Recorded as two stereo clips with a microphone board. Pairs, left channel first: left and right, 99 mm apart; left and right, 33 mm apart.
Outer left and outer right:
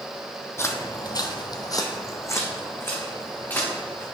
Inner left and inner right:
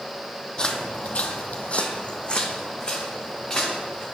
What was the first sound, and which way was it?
Footsteps, 25° left (ahead or behind).